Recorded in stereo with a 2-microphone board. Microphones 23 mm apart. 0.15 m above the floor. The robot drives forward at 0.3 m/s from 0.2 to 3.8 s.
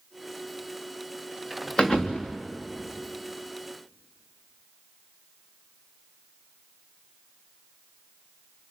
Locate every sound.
1.8 s a thud: 35° left (ahead or behind), 2.5 m